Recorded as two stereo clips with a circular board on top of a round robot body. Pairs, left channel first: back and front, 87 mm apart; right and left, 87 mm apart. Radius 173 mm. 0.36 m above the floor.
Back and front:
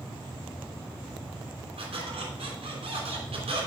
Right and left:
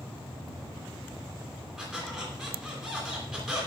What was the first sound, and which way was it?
A squeak, 5° left.